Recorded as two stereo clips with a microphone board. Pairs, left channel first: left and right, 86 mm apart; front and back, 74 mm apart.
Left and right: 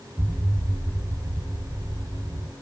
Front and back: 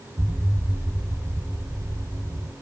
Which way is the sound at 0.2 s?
140° right.